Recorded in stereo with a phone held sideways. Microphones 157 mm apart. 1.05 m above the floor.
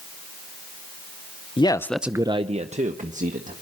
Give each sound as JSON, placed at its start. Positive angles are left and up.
{"t": 1.6, "sound": "a man speaking", "side_deg": 35, "distance_m": 0.8}